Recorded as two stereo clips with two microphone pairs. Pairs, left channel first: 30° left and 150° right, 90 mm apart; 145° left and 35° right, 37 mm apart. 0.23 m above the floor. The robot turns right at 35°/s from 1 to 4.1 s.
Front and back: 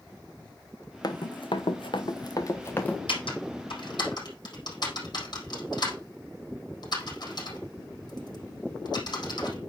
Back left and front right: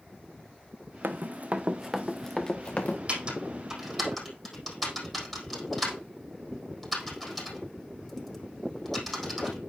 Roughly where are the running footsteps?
Ahead.